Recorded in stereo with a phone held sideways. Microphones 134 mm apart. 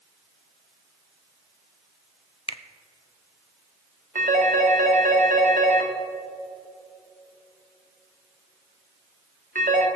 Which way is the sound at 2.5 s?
45° left (ahead or behind).